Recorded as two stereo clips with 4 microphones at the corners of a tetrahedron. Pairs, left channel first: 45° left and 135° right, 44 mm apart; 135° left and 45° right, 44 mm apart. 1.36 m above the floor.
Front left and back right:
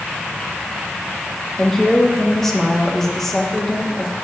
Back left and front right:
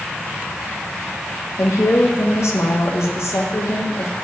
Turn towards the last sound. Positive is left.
turn(degrees=130)